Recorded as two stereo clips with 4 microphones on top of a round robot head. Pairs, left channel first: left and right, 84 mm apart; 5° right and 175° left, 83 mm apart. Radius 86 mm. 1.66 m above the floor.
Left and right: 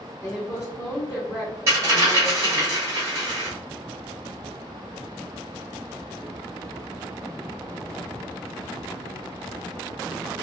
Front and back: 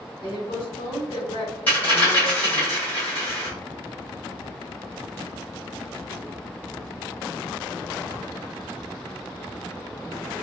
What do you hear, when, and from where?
0.2 s a woman speaking: 25° left, 1.1 m
1.7 s a dropped coin: 65° right, 0.9 m